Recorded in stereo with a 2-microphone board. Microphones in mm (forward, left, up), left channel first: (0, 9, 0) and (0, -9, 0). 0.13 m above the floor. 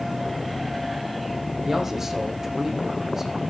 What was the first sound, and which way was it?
A man speaking, 20° right (ahead or behind).